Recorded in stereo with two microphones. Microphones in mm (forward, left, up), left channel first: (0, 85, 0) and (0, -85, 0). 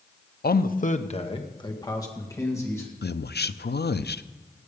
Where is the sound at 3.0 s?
85° left, 0.6 m.